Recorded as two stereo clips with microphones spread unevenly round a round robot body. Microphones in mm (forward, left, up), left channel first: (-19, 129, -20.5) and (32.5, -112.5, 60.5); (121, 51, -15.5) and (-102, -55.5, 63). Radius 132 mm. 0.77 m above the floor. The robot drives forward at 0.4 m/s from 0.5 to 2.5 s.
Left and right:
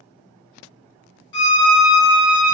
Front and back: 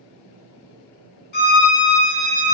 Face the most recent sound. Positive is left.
turn(degrees=120)